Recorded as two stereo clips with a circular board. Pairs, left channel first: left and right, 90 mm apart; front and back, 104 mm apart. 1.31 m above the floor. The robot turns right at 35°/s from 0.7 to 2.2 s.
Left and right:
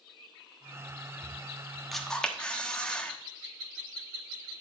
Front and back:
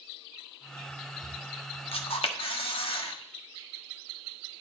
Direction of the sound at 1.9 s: Straight ahead.